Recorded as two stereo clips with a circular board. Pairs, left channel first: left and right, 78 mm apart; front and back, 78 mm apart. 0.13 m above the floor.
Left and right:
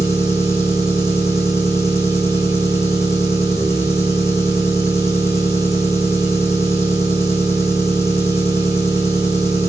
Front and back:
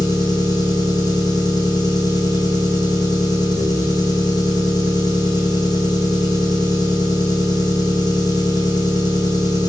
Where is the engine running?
35° left, 4.5 m.